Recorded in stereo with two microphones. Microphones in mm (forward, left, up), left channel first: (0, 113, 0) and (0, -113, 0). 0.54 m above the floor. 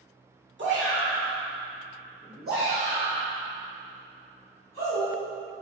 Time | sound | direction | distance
0.6 | a shout | 55° right (ahead or behind) | 1.4 m